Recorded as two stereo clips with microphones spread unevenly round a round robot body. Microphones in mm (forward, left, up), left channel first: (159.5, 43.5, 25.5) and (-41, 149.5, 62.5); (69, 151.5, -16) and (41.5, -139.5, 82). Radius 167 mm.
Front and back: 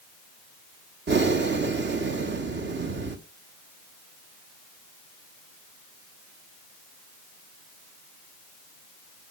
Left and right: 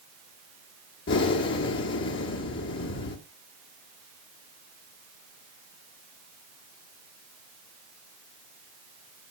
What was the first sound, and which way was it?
Breathing, 110° left.